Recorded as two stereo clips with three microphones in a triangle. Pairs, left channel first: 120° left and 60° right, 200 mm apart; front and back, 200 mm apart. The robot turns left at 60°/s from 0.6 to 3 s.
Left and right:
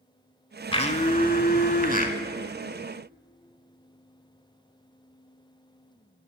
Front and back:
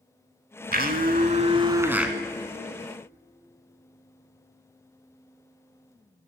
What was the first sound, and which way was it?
A blender, 175° left.